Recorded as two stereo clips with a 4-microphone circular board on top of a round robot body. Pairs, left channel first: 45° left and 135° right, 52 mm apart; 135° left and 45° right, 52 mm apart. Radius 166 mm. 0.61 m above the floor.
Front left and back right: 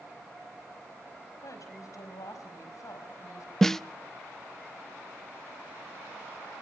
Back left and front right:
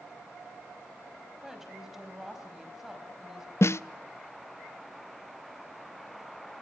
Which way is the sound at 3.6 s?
125° left.